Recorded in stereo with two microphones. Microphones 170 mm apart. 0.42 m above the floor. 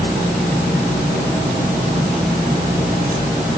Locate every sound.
Only background noise.